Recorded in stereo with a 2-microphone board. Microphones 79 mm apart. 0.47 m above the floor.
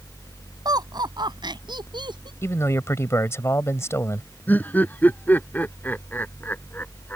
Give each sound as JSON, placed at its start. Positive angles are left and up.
{"t": 0.7, "sound": "laughter", "side_deg": -60}
{"t": 2.4, "sound": "a man speaking", "side_deg": 35}
{"t": 4.5, "sound": "laughter", "side_deg": 25}